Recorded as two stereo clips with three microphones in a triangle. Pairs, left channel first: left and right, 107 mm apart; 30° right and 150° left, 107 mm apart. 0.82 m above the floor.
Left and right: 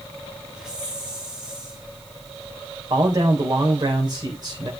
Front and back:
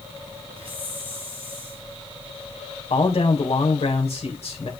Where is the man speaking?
40° right, 3 m.